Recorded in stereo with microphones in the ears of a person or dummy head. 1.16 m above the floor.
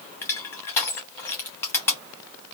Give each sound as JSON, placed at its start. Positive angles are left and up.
{"t": 0.2, "sound": "crushing", "side_deg": 10, "distance_m": 0.9}